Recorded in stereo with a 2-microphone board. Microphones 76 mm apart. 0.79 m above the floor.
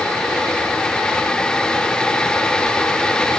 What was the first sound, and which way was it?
Only background noise.